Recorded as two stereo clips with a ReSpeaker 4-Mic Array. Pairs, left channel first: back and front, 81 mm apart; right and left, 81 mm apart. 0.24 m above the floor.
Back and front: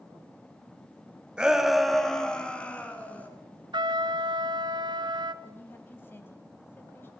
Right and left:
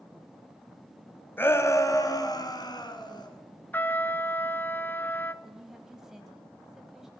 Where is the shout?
65° right, 1.2 m; by 3.3 s 110° right, 2.5 m.